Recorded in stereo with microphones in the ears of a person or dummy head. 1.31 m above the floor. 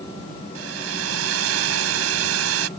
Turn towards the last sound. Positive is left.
turn(degrees=-85)